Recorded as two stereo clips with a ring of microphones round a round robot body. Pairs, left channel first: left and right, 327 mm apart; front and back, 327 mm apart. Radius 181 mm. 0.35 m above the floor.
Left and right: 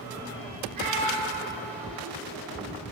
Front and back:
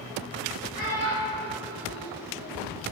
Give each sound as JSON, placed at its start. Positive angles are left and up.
{"t": 0.7, "sound": "a child speaking", "azimuth_deg": -105, "distance_m": 1.6}